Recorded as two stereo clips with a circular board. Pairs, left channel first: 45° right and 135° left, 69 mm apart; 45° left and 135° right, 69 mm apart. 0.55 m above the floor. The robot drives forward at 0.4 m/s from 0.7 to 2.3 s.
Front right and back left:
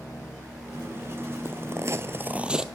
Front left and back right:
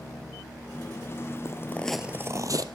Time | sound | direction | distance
1.4 | footsteps | 80° left | 1.0 m